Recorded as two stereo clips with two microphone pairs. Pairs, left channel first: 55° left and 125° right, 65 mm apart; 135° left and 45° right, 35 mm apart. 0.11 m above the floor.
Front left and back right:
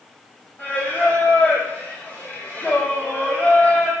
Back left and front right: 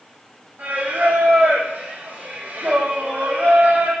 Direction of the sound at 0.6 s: 10° right.